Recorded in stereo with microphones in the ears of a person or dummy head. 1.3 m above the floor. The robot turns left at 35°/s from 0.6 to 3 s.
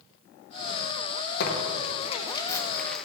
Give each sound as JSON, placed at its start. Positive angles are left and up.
{"t": 1.4, "sound": "tearing paper", "side_deg": 55, "distance_m": 1.5}